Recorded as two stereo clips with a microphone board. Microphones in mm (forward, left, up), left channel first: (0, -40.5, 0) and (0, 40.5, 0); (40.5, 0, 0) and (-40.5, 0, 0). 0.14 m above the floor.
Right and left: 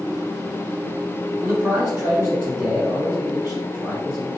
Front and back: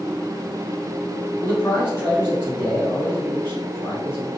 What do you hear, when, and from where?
1.4 s a man speaking: 45° left, 1.8 m